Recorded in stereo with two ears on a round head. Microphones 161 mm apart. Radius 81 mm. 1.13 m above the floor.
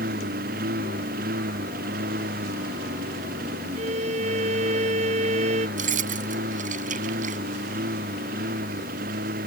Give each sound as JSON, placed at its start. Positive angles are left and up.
{"t": 0.0, "sound": "a lawn mower", "side_deg": -50}
{"t": 3.8, "sound": "a violin", "side_deg": -35}
{"t": 5.8, "sound": "keys jangling", "side_deg": -50}